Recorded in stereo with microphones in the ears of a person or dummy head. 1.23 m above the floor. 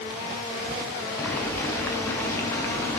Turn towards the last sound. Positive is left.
turn(degrees=10)  # may be behind; listen again after turning